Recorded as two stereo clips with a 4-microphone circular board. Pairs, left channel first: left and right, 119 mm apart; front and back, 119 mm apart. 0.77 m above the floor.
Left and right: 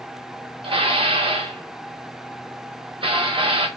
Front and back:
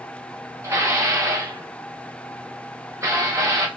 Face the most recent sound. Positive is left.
turn(degrees=-120)